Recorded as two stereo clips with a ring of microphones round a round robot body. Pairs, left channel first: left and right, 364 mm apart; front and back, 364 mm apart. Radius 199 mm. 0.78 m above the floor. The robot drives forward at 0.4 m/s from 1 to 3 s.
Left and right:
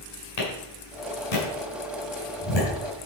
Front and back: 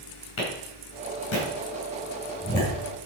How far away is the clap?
About 5.5 m.